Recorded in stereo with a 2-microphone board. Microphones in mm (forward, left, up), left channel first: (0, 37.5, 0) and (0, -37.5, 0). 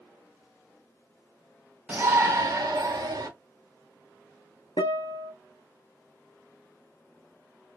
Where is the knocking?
I don't hear knocking.